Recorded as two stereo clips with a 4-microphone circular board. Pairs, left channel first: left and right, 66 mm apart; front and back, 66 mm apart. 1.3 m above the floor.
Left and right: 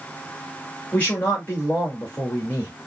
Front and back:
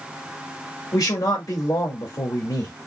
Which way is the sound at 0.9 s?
25° left.